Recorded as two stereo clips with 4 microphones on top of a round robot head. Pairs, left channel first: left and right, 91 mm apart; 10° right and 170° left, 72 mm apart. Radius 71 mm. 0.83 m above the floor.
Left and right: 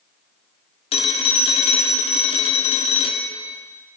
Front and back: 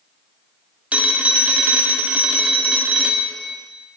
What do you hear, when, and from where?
0.9 s a phone ringing: 100° left, 1.2 m